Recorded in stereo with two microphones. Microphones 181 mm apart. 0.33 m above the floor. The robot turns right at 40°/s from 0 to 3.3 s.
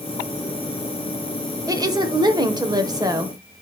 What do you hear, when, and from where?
1.7 s a woman speaking: 20° right (ahead or behind), 1.0 m